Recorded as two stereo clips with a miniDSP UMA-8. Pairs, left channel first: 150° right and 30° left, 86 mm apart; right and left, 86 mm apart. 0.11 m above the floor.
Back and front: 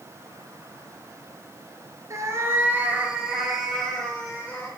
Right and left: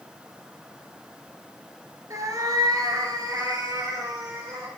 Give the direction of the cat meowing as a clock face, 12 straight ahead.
10 o'clock.